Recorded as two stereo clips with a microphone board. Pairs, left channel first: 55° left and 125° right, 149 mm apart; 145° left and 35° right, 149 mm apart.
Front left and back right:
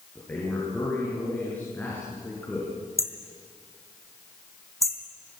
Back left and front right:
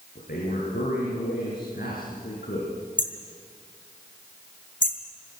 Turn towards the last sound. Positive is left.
turn(degrees=125)